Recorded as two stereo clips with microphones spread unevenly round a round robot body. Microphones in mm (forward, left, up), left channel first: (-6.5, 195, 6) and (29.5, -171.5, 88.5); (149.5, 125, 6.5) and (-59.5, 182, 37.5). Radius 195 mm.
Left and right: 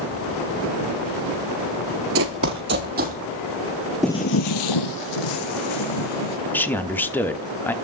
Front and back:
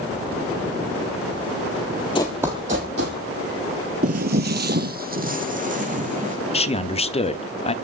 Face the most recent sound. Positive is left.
turn(degrees=25)